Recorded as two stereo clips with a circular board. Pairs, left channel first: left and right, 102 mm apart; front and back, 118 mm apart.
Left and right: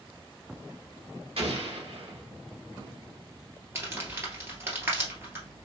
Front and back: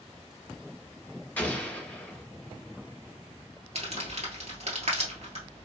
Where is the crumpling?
155° right, 1.7 m.